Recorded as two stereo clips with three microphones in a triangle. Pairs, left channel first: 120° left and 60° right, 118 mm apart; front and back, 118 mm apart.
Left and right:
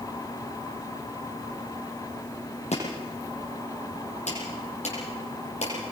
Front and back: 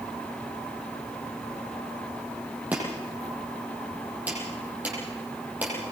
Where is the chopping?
100° left, 8 m.